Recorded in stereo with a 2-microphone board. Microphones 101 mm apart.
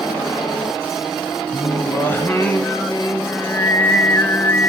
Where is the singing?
25° left (ahead or behind), 0.7 m.